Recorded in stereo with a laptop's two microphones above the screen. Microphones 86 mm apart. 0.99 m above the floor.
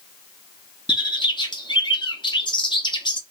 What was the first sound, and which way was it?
A bird, 65° left (ahead or behind).